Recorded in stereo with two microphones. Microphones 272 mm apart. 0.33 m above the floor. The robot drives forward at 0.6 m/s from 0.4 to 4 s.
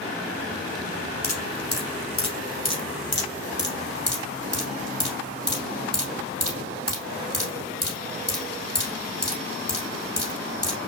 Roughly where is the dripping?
Left.